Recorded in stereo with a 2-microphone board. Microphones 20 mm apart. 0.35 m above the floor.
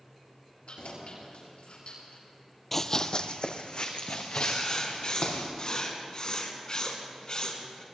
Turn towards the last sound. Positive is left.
turn(degrees=45)  # may be behind; listen again after turning